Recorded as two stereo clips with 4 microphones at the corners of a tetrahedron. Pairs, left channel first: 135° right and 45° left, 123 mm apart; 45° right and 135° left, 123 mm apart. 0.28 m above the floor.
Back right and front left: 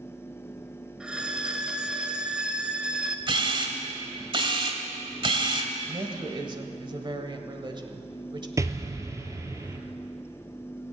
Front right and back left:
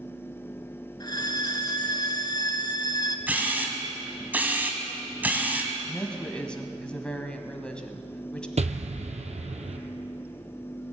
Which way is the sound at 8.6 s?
110° left.